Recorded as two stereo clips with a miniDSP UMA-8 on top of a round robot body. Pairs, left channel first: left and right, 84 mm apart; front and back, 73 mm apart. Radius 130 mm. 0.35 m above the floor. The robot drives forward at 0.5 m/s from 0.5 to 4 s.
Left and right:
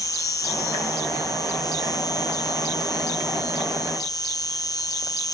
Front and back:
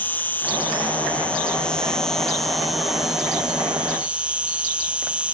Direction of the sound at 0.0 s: 60° left.